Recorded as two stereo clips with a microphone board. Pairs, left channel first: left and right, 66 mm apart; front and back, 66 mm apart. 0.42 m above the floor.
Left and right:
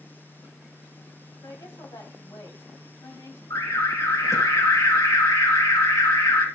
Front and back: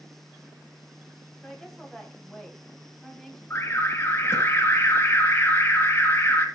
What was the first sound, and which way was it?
A woman speaking, 85° left.